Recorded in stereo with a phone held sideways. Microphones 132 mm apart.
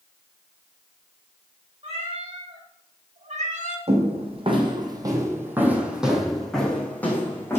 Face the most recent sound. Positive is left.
turn(degrees=20)  # may be behind; listen again after turning